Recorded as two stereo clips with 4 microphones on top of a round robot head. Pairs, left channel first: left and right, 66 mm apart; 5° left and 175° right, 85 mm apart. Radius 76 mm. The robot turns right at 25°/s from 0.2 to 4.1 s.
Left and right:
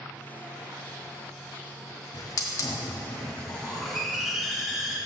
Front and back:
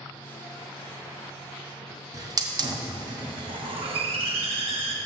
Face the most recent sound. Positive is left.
turn(degrees=-175)